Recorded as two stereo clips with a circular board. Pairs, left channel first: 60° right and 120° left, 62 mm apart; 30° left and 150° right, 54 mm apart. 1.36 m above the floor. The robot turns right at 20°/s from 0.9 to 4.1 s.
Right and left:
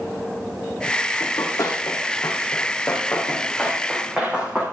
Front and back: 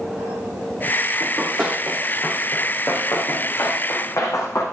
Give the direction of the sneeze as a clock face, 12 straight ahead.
I don't hear a sneeze.